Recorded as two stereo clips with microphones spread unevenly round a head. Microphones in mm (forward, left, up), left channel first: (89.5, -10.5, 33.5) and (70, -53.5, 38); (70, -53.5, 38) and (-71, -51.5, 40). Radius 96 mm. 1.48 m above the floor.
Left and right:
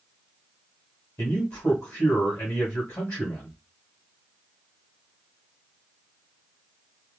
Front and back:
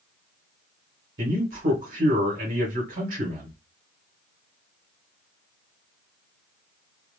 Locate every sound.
1.2 s a man speaking: 140° left, 1.9 m